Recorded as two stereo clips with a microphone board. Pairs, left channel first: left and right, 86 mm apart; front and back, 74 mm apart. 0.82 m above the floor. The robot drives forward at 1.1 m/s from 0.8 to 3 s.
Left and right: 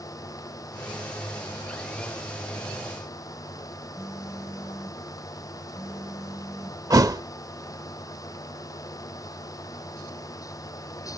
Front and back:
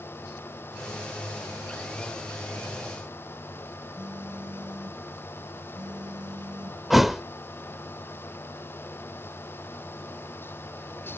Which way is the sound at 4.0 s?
175° right.